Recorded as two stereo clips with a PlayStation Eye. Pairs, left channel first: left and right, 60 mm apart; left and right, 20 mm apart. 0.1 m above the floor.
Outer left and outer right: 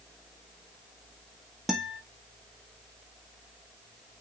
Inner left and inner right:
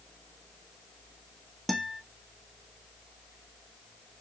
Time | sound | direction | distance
1.7 | a guitar | 5° right (ahead or behind) | 1.1 m